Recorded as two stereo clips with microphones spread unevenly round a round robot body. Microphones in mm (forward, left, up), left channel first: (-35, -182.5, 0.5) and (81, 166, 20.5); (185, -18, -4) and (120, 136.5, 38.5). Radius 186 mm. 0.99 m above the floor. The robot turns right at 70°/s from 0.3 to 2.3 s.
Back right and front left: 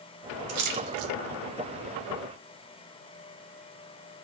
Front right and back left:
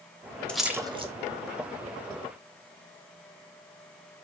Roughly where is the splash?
Ahead.